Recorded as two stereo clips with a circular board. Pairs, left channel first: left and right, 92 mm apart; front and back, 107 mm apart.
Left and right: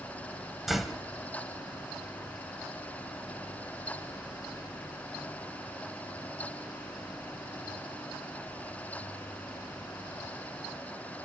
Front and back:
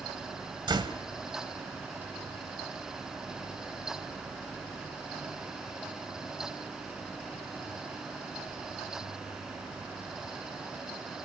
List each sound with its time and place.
0.7 s a door slam: 175° right, 1.4 m